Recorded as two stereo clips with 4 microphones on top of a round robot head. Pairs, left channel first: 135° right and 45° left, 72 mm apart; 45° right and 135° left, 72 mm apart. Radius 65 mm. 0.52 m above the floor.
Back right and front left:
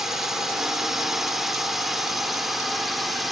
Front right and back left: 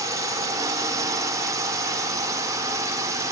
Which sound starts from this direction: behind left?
A drone, at 0.0 s.